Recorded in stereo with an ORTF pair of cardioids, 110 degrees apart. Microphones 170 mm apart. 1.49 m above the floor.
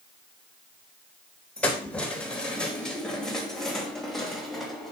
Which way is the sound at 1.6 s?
10° left.